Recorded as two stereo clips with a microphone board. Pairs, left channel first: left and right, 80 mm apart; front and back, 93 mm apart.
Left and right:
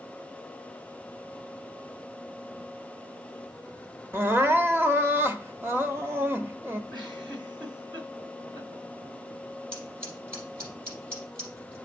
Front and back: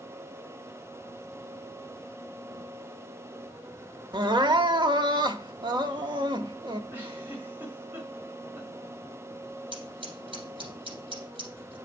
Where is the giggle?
115° right, 3.5 m.